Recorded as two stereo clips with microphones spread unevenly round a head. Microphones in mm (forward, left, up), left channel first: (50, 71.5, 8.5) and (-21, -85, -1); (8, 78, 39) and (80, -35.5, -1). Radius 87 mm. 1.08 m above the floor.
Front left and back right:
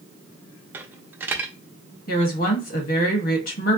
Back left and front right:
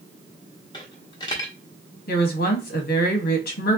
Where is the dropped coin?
165° left, 0.6 m.